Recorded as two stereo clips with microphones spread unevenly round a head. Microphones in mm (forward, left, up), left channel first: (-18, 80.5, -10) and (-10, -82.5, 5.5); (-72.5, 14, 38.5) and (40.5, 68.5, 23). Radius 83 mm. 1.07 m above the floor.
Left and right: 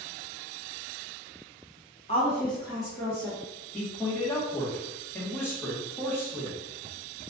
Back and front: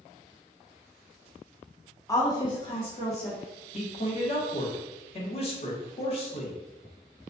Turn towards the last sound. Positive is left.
turn(degrees=165)